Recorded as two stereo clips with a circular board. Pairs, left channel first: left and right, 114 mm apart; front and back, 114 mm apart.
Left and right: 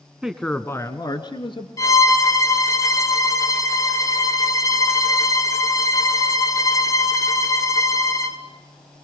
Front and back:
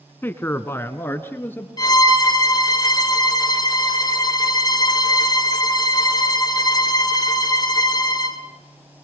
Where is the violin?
40° left, 1.6 m.